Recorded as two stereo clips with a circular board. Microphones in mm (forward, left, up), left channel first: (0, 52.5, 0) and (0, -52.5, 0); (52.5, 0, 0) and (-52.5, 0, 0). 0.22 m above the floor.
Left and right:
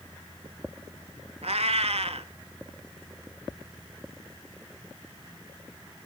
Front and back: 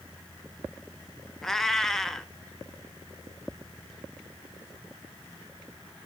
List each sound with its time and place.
1.4 s a cat meowing: 85° right, 0.6 m